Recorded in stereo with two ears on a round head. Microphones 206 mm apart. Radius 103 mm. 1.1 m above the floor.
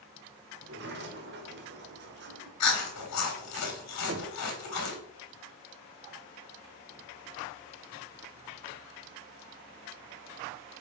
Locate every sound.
0.6 s a sliding door: 50° right (ahead or behind), 1.2 m
2.6 s chewing: 80° left, 2.0 m
4.1 s knocking: 50° right (ahead or behind), 0.7 m